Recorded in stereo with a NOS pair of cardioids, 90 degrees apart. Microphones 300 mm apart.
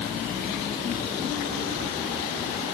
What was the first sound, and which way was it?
Only background noise.